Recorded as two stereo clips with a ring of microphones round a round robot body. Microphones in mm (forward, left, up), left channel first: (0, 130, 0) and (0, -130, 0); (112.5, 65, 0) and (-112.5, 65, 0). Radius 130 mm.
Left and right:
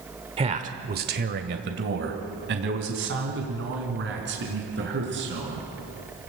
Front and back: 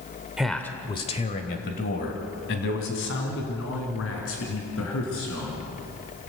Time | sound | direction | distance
0.4 | a man speaking | 100° right | 1.1 m